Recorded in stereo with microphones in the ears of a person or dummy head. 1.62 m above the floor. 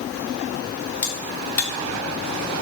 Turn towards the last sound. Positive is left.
turn(degrees=10)  # may be behind; listen again after turning